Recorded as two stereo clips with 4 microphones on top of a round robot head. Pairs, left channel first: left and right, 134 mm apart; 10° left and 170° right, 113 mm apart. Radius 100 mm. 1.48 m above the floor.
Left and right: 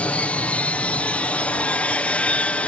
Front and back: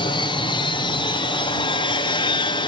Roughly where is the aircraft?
Ahead.